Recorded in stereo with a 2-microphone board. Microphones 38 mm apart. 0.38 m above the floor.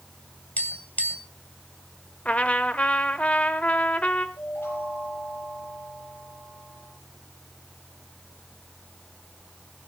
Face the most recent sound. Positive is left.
turn(degrees=70)  # may be behind; listen again after turning